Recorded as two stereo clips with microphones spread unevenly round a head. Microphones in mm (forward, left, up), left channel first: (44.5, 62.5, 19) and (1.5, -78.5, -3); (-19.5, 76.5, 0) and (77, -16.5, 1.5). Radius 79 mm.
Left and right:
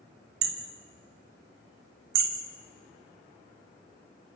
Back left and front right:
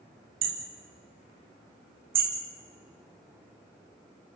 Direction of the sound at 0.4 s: 105° right.